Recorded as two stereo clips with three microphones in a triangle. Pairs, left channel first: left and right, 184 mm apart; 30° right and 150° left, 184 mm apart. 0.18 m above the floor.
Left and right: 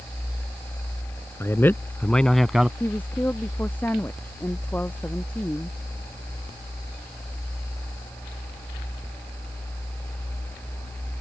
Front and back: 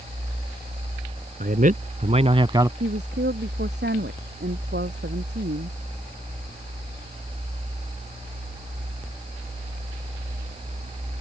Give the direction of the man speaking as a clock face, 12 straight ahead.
7 o'clock.